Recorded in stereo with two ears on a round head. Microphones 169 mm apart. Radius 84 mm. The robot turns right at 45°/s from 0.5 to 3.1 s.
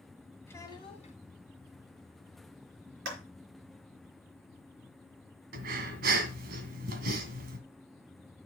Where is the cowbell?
I don't hear a cowbell.